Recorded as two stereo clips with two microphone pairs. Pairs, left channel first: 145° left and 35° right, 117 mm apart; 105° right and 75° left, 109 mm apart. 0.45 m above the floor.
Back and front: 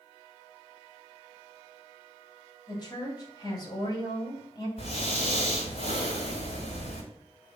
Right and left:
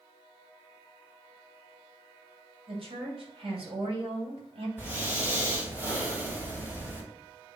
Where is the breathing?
145° left, 3 m.